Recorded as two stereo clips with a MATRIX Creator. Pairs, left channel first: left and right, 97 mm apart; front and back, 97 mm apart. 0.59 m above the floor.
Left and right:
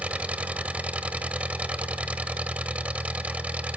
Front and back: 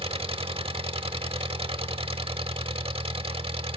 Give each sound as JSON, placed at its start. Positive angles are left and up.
{"t": 0.0, "sound": "an engine running", "azimuth_deg": -165, "distance_m": 0.9}